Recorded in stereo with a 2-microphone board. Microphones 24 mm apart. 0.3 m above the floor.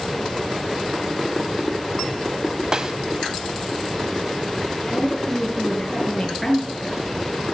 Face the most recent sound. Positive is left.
turn(degrees=10)  # may be behind; listen again after turning